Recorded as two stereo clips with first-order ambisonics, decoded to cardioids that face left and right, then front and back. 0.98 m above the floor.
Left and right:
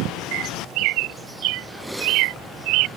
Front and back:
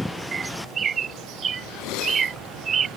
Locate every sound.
0.3 s a bird: 115° right